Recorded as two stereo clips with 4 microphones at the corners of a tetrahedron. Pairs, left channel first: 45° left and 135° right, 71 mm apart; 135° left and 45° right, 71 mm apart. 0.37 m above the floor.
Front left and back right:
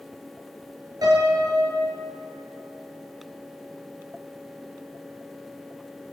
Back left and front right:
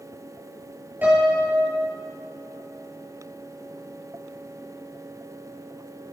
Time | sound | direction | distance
1.0 | a piano | 110° right | 4.5 m